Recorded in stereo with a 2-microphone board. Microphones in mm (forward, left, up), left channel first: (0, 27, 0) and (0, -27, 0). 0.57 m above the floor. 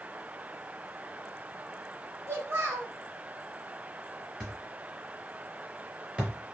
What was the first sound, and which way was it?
A child speaking, 45° right (ahead or behind).